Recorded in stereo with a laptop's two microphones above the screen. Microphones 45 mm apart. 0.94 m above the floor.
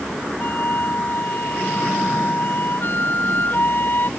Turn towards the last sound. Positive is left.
turn(degrees=45)  # may be behind; listen again after turning